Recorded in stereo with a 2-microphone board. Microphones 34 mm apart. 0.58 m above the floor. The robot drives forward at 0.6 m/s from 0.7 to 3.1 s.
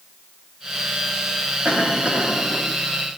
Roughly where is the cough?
Right.